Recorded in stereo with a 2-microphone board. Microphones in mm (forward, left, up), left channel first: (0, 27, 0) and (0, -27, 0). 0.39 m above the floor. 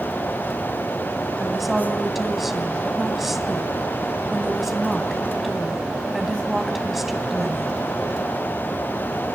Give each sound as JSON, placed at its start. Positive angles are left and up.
{"t": 1.4, "sound": "a woman speaking", "side_deg": -5, "distance_m": 3.0}